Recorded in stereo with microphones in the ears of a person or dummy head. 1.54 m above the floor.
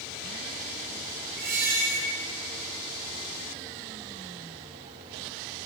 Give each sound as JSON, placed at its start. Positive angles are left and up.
{"t": 1.4, "sound": "a squeak", "side_deg": -55, "distance_m": 3.0}